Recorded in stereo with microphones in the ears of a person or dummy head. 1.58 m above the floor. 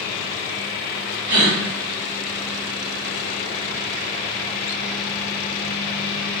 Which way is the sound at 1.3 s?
65° right (ahead or behind).